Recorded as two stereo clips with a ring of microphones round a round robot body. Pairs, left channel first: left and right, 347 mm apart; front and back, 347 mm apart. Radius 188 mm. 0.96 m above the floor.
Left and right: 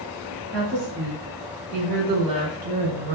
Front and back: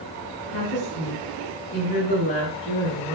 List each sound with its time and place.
0.5 s a woman speaking: 40° right, 2 m; by 3.1 s 80° right, 0.9 m